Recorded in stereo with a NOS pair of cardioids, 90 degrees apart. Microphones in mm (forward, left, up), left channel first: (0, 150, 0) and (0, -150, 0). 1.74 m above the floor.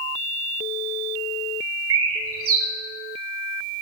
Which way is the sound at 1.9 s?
50° right.